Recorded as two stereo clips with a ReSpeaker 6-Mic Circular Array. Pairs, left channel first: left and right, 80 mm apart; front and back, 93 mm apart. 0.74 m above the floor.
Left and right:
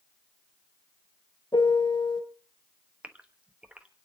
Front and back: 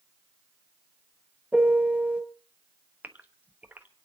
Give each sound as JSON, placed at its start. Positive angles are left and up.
{"t": 1.5, "sound": "a piano", "azimuth_deg": 105, "distance_m": 2.0}
{"t": 3.0, "sound": "a gasp", "azimuth_deg": -140, "distance_m": 1.1}